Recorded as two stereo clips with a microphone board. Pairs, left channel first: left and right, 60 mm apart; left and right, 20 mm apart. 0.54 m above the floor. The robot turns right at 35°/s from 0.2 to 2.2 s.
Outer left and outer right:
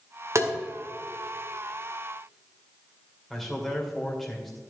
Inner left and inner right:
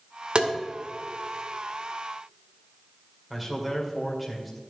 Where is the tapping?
55° right (ahead or behind), 1.9 m.